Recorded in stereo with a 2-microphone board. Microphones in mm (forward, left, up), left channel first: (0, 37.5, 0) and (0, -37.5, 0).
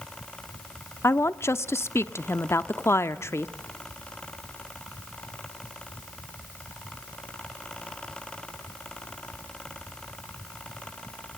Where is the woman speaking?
40° left (ahead or behind), 0.7 m.